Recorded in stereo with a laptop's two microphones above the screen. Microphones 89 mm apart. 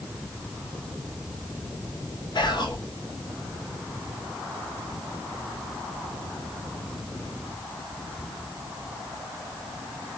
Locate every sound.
2.4 s whispering: 55° left (ahead or behind), 0.7 m